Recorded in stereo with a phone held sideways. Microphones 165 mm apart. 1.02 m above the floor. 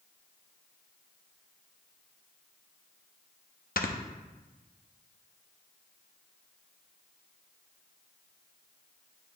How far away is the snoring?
About 0.6 m.